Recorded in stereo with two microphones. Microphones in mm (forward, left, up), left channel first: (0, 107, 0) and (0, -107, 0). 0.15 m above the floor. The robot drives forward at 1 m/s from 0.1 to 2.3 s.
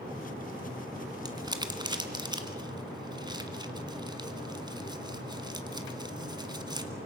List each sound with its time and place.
1.2 s crumpling: 20° right (ahead or behind), 1.7 m